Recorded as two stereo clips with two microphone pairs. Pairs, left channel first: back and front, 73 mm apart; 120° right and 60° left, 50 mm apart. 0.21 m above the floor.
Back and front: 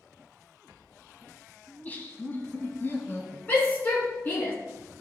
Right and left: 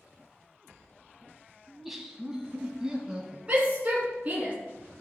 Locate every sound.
1.7 s laughter: 150° left, 1.3 m; by 3.4 s 130° left, 2 m
3.5 s a shout: 120° left, 1.8 m